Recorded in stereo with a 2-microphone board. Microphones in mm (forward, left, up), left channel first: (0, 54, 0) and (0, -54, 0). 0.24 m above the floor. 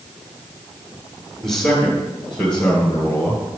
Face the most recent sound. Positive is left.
turn(degrees=15)  # may be behind; listen again after turning